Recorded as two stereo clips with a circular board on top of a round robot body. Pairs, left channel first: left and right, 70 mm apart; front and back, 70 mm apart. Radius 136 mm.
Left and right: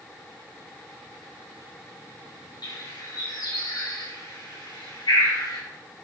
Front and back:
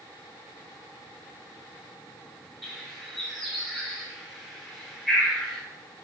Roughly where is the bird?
Left.